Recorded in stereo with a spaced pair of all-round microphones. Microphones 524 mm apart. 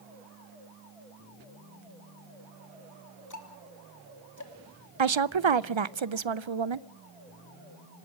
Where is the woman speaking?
60° right (ahead or behind), 0.6 m.